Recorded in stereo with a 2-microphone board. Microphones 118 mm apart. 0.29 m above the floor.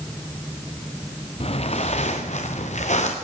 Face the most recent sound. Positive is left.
turn(degrees=85)